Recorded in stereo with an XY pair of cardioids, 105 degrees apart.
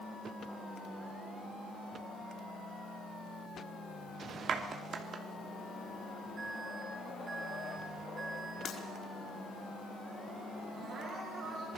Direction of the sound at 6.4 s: 40° right.